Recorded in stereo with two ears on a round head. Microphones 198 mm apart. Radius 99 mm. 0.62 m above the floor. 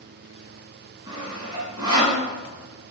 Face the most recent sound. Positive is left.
turn(degrees=-20)  # may be behind; listen again after turning